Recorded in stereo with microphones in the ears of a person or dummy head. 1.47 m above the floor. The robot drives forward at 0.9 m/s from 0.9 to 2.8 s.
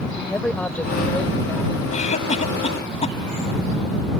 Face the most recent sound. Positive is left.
turn(degrees=35)  # may be behind; listen again after turning